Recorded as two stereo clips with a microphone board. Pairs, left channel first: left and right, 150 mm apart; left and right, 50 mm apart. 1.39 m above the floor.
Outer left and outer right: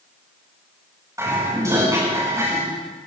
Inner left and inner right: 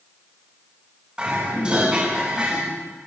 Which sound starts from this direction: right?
Dishes clattering, at 1.2 s.